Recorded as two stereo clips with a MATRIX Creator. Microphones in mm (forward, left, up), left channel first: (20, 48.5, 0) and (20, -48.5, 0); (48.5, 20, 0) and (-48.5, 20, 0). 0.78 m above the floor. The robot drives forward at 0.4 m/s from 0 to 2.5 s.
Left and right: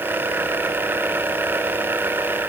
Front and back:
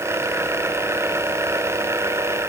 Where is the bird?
No bird in this recording.